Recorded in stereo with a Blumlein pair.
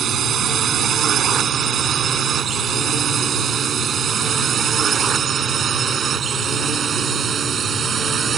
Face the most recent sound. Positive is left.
turn(degrees=-20)